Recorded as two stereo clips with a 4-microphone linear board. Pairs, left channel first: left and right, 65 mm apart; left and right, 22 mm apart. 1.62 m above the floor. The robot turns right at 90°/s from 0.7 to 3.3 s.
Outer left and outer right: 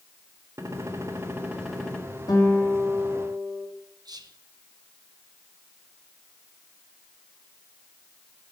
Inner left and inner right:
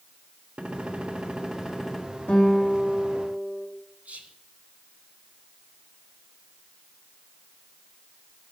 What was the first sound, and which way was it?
A gunshot, 95° right.